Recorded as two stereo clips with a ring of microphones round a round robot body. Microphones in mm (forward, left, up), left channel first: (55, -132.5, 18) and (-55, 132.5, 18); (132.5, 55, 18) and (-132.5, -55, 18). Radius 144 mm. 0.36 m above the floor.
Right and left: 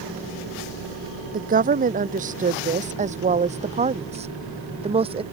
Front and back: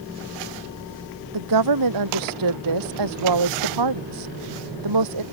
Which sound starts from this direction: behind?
A woman speaking, at 1.3 s.